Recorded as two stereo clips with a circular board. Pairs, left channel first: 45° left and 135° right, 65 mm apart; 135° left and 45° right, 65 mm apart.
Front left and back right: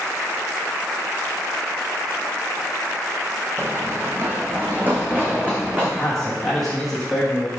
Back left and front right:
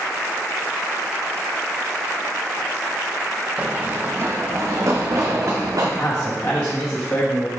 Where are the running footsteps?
105° right, 1.1 m; by 5.9 s 70° right, 2.5 m.